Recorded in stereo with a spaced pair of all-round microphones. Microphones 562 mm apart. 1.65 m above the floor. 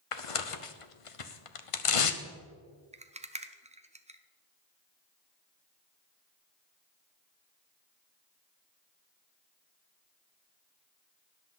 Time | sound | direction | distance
0.1 | tearing paper | 65° left (ahead or behind) | 0.8 m
2.9 | a rattle | 10° right (ahead or behind) | 0.6 m